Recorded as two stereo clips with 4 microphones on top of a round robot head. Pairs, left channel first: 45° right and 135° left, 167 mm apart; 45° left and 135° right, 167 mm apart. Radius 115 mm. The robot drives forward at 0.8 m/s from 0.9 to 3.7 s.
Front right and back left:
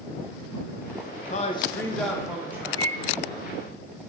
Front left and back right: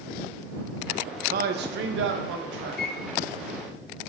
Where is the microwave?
20° left, 0.9 m; by 3.1 s 30° left, 0.6 m.